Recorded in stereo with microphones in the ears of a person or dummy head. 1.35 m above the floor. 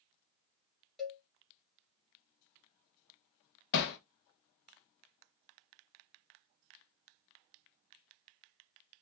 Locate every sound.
1.0 s a cowbell: centre (ahead or behind), 1.2 m
3.7 s hammering: 55° left (ahead or behind), 0.6 m